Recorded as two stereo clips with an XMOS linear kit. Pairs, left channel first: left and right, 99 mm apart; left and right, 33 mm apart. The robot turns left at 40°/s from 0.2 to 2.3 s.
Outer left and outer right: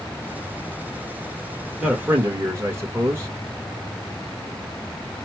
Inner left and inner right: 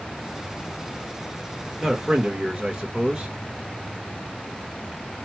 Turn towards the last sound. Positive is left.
turn(degrees=-25)  # may be behind; listen again after turning